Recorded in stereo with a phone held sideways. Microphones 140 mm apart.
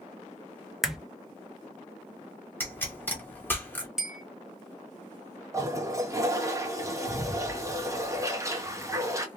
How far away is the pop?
About 1.1 m.